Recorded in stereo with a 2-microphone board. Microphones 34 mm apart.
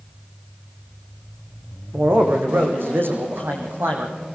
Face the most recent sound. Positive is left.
turn(degrees=-75)  # may be behind; listen again after turning